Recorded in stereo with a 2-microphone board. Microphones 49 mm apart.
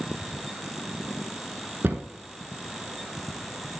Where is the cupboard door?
50° right (ahead or behind), 0.8 m.